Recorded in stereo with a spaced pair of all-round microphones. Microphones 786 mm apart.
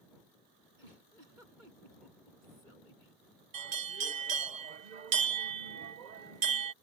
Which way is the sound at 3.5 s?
60° right (ahead or behind).